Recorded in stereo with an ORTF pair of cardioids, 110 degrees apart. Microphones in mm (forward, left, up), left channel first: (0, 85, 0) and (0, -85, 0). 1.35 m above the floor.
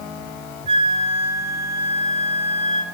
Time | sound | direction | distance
0.7 | a flute | 35° right | 4 m